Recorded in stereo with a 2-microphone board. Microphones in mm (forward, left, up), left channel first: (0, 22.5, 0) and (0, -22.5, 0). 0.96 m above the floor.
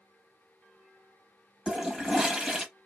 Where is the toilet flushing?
20° right (ahead or behind), 1.0 m.